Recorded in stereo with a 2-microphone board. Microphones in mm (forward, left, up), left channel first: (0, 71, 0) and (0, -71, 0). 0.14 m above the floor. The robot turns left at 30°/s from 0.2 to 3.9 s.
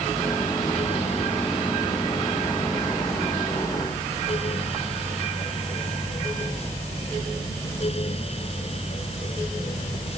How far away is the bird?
I don't hear a bird.